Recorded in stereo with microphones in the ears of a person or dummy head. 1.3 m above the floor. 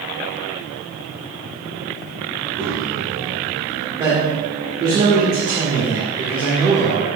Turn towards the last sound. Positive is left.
turn(degrees=-20)  # may be behind; listen again after turning